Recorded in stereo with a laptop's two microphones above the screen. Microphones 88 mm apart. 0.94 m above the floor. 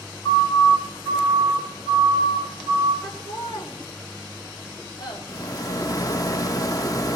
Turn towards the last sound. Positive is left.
turn(degrees=45)  # may be behind; listen again after turning